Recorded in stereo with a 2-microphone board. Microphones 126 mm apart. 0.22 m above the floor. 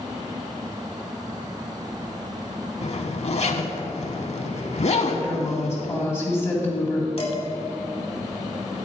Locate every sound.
2.8 s a zipper: 60° left (ahead or behind), 0.6 m
5.1 s a woman speaking: 20° left (ahead or behind), 1.7 m
7.2 s dishes clattering: 50° left (ahead or behind), 1.1 m